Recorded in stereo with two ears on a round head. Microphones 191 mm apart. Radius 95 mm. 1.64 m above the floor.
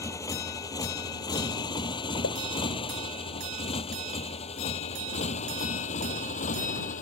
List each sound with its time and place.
0.0 s a motorcycle: 15° left (ahead or behind); by 7.0 s 35° left (ahead or behind)
2.2 s a pop: 60° left (ahead or behind)